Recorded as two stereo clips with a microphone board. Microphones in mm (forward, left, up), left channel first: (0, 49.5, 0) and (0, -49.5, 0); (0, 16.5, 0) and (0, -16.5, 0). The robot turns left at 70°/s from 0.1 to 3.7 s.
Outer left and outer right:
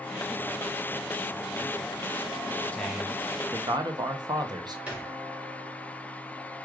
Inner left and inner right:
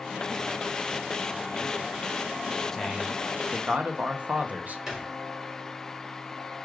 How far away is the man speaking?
About 0.6 m.